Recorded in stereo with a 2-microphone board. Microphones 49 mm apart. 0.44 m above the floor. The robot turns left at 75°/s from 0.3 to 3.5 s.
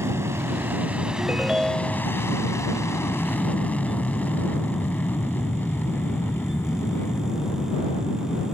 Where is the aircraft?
65° right (ahead or behind); by 8.5 s 50° left (ahead or behind).